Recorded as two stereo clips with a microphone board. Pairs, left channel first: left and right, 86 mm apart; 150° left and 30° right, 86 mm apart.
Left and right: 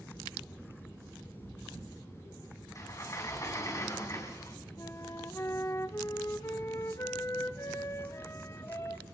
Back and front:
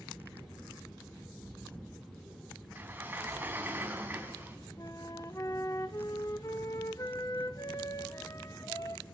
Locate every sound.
2.8 s a sliding door: 40° left, 3 m
4.8 s a flute: 130° left, 1.0 m